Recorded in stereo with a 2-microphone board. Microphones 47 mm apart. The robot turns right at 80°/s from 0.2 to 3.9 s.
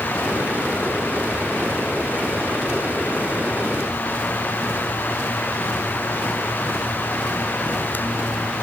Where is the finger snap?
No finger snap in this recording.